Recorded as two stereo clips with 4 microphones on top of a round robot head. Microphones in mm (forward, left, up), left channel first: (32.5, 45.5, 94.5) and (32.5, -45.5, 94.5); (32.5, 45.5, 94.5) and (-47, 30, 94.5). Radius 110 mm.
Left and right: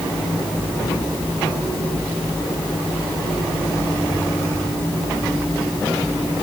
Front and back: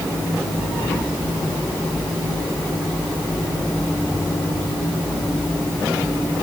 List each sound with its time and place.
Only background noise.